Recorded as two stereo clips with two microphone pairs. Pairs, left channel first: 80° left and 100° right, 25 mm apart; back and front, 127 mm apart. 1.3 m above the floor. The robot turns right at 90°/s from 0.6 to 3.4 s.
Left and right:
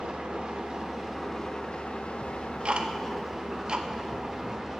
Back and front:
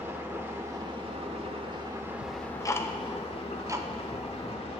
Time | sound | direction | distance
0.0 | an engine running | 65° right | 1.2 m
2.2 | ticking | 160° right | 0.6 m